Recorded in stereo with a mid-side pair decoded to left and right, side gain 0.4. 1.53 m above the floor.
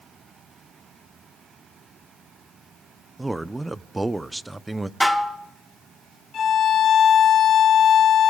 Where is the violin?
60° left, 1.7 m.